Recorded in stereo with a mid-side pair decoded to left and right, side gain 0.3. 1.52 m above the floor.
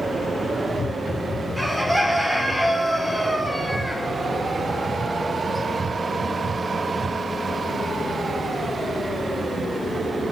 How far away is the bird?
About 0.8 m.